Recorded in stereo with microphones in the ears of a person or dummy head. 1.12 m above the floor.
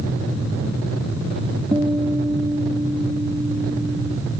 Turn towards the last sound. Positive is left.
turn(degrees=-20)  # may be behind; listen again after turning